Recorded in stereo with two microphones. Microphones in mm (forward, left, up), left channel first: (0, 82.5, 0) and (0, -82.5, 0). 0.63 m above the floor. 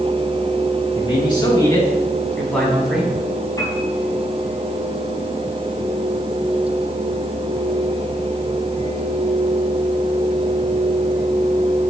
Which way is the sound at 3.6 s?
20° left (ahead or behind).